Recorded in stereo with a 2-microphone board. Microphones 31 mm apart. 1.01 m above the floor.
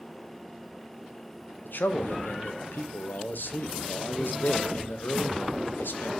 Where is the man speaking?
75° left (ahead or behind), 0.6 m.